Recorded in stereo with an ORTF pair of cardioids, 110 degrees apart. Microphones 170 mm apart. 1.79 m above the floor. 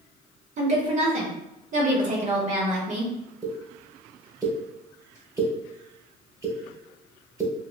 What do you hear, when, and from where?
0.6 s a woman speaking: 45° right, 1.2 m
3.4 s a pop: 20° right, 1.3 m